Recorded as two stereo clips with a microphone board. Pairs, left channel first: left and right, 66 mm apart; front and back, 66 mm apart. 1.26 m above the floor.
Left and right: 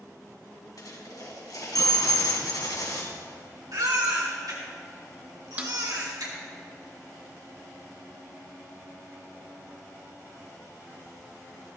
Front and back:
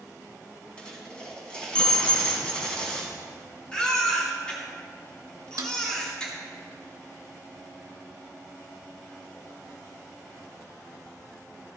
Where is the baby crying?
75° right, 2.5 m.